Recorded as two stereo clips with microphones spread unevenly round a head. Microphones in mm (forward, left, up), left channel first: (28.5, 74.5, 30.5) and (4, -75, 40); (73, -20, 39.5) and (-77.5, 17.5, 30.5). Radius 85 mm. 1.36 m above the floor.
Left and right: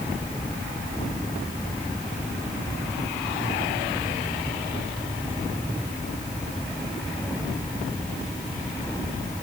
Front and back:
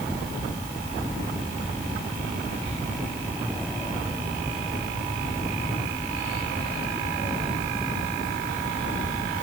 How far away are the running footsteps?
I don't hear running footsteps.